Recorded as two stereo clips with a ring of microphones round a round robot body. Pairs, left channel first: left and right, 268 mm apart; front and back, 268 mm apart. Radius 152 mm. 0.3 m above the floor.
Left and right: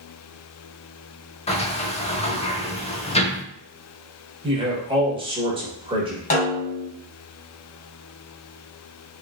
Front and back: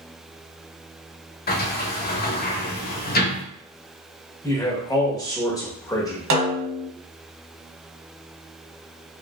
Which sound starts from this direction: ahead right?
A man speaking, at 4.4 s.